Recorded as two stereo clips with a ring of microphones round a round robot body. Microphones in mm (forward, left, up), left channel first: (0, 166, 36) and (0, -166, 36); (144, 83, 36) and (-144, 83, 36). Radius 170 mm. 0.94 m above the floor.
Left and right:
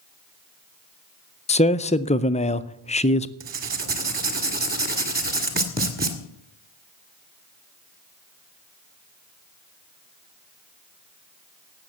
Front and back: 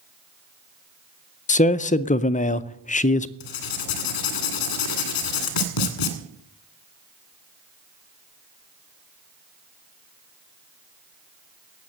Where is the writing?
25° right, 1.9 m.